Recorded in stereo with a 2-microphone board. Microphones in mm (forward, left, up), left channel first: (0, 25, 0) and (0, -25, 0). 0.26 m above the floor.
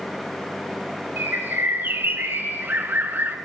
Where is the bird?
45° right (ahead or behind), 0.7 m.